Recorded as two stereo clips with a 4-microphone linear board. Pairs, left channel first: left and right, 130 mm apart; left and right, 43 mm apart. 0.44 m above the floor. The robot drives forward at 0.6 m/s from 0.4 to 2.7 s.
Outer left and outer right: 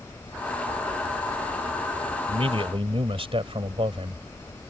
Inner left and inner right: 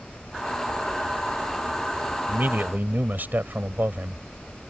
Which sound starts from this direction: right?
A man speaking, at 2.3 s.